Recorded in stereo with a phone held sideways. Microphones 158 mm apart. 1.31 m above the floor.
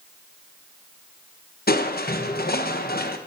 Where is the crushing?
75° left (ahead or behind), 0.8 m.